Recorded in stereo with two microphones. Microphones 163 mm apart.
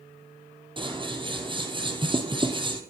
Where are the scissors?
30° right (ahead or behind), 2.5 m.